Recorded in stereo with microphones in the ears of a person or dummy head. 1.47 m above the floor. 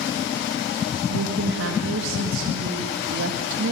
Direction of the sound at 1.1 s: 75° right (ahead or behind).